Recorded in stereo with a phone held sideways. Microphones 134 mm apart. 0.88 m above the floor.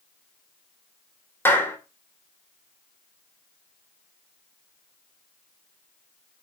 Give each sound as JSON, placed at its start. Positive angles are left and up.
{"t": 1.4, "sound": "a clap", "side_deg": 15, "distance_m": 3.0}